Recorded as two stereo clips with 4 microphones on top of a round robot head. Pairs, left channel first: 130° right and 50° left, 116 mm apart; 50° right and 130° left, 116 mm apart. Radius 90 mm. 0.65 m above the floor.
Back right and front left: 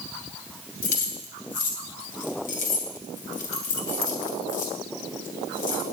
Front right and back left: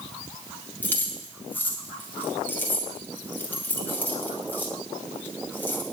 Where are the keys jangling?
125° right, 2.5 m.